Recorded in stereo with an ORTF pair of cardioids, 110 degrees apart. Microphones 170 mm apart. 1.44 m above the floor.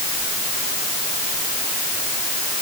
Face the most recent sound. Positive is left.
No sound to turn to.